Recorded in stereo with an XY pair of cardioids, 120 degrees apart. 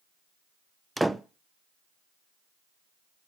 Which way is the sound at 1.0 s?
5° right.